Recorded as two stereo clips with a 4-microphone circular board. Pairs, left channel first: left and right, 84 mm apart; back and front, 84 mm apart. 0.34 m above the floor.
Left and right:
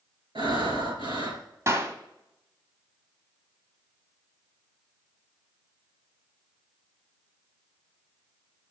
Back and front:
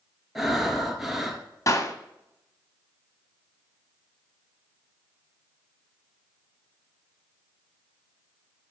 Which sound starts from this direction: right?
Breathing, at 0.3 s.